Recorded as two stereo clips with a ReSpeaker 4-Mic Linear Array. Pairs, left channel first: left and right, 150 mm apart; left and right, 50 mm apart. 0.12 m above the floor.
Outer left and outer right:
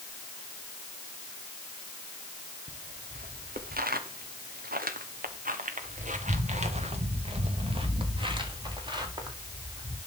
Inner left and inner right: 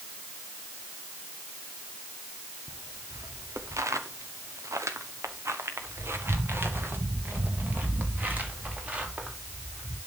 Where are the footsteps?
65° right (ahead or behind), 1.9 m; by 10.0 s 25° right (ahead or behind), 4 m.